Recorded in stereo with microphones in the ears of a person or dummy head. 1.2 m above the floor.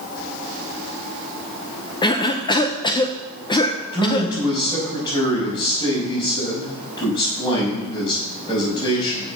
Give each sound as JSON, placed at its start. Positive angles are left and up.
{"t": 2.0, "sound": "a cough", "side_deg": 25, "distance_m": 0.6}
{"t": 3.9, "sound": "a man speaking", "side_deg": 25, "distance_m": 5.0}